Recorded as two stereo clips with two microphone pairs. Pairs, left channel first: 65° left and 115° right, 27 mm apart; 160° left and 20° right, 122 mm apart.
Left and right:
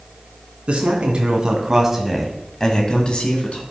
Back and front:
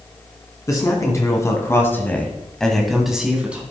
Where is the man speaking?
145° right, 2 m; by 3.6 s 60° left, 2 m.